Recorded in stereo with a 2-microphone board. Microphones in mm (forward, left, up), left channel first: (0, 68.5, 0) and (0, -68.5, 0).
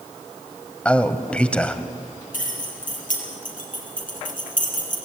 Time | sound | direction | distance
0.8 | a man speaking | 10° left (ahead or behind) | 1.1 m
2.3 | keys jangling | 75° left (ahead or behind) | 5 m